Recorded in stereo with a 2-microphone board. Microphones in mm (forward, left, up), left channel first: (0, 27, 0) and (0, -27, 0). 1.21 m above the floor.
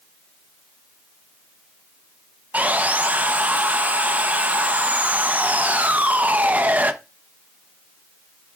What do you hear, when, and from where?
2.5 s sawing: 30° right (ahead or behind), 0.9 m